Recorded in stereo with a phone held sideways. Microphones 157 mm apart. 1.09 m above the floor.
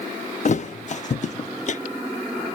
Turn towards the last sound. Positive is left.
turn(degrees=50)  # may be behind; listen again after turning